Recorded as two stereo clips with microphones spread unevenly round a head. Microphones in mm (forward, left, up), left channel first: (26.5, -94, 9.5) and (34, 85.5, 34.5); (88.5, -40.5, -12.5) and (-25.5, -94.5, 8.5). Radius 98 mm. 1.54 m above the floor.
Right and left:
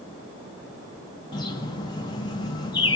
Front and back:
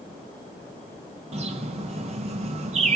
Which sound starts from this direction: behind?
A bird, at 1.3 s.